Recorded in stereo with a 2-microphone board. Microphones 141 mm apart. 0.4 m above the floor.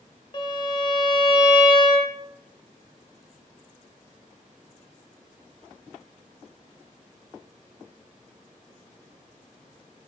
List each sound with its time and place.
0.3 s a violin: 30° left (ahead or behind), 0.6 m